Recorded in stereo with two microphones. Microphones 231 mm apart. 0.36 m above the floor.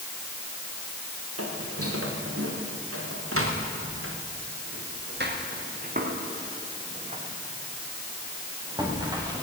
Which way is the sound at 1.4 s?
85° right.